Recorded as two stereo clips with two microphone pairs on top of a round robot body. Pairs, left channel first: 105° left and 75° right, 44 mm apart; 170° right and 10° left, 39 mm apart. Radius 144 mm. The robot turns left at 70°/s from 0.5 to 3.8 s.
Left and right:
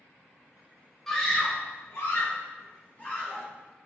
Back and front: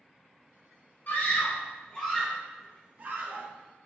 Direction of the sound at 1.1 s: 170° right.